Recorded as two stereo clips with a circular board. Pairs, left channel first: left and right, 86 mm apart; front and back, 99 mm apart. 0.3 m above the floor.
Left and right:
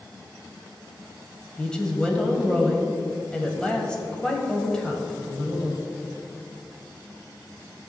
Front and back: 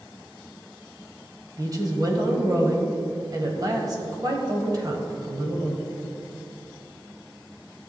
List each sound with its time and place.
1.6 s a woman speaking: 165° left, 1.7 m